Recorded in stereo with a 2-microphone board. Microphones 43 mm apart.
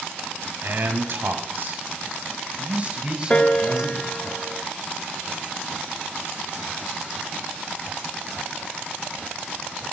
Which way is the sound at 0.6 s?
60° right (ahead or behind).